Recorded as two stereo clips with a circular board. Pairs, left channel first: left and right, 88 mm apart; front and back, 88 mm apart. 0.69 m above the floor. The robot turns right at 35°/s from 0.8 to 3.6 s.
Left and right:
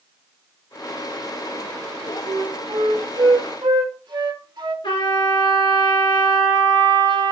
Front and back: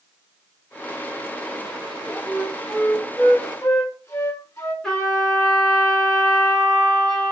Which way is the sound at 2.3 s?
105° right.